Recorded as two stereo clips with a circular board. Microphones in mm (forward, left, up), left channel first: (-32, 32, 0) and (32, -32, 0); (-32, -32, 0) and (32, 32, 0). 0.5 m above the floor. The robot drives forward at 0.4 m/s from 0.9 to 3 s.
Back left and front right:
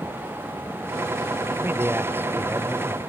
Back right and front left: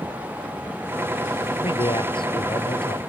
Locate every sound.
1.6 s a man speaking: 110° right; by 3.0 s 115° right